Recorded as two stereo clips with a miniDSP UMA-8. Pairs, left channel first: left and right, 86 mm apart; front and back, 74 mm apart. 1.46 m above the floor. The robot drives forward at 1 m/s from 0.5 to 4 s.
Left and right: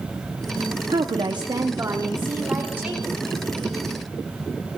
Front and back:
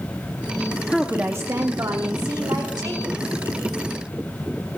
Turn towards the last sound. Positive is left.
turn(degrees=-170)